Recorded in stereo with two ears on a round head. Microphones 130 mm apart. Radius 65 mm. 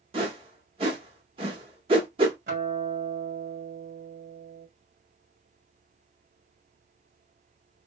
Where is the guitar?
55° right (ahead or behind), 1.8 m.